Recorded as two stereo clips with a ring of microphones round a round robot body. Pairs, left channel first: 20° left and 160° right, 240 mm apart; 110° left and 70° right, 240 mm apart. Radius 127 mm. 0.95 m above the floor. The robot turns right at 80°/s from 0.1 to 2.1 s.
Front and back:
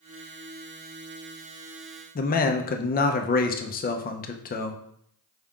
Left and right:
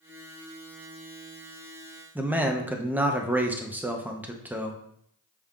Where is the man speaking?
10° left, 0.5 m.